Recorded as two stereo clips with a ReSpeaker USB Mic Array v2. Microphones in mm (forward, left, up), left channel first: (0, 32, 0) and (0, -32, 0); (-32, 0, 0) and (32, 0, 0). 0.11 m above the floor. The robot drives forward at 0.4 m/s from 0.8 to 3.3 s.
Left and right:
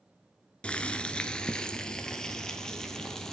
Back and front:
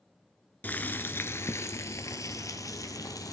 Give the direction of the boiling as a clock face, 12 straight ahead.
7 o'clock.